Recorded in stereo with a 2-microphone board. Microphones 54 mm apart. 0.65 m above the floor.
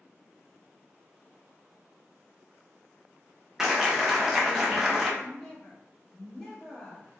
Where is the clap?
5° right (ahead or behind), 0.5 m.